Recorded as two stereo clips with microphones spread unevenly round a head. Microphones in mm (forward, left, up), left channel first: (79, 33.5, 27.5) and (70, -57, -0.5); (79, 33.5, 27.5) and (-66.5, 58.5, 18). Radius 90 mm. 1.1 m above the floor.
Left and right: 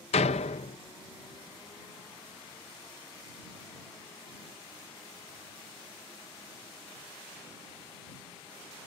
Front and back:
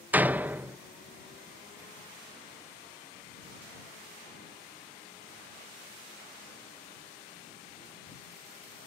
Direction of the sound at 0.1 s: 90° left.